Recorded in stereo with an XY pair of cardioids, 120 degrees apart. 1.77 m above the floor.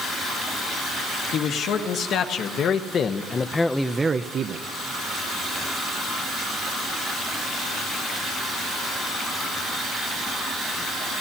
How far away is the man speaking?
About 2 m.